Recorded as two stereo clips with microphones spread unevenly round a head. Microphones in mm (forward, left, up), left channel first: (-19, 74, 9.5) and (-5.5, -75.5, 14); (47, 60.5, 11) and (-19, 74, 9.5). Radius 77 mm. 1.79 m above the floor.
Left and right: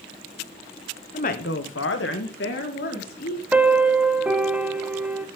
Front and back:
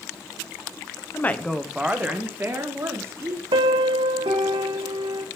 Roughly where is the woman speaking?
Ahead left.